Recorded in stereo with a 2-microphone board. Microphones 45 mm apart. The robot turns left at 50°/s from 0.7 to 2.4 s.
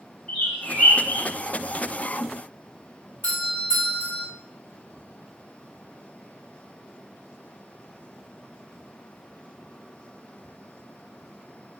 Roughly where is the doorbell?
Left.